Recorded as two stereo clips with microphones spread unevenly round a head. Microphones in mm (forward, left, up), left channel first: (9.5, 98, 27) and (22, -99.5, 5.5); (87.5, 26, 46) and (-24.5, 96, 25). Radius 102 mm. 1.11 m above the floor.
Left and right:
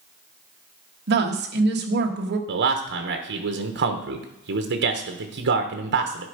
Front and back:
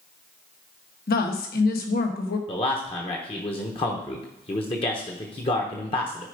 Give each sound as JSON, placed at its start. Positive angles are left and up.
{"t": 1.1, "sound": "a woman speaking", "azimuth_deg": -55, "distance_m": 1.4}
{"t": 2.5, "sound": "a man speaking", "azimuth_deg": -85, "distance_m": 1.0}